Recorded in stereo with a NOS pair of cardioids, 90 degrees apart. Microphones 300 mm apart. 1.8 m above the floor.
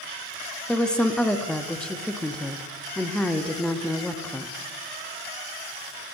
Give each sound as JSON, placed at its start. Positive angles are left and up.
{"t": 0.7, "sound": "a woman speaking", "azimuth_deg": 5, "distance_m": 0.6}